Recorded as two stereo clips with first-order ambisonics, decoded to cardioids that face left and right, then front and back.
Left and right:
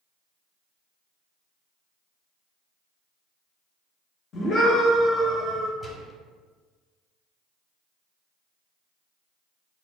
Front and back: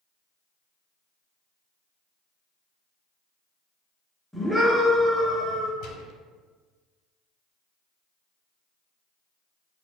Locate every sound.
4.3 s a scream: 85° left, 0.7 m; by 5.7 s 165° right, 0.9 m
5.8 s a gunshot: straight ahead, 0.5 m